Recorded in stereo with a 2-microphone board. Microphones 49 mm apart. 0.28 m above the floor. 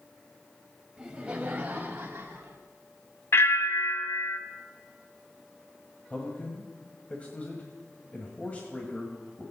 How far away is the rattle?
No rattle in this recording.